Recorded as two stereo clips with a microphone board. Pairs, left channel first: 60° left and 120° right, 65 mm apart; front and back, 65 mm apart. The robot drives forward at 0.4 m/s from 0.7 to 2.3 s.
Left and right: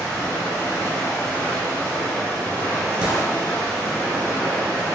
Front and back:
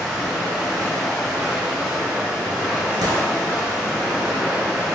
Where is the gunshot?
165° left, 0.7 m.